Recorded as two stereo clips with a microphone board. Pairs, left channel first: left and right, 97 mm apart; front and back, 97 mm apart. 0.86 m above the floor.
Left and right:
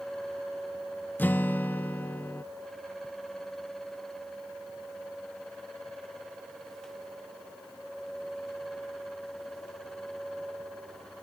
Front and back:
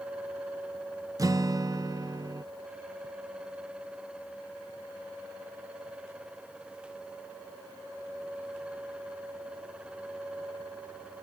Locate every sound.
1.2 s a guitar: 150° left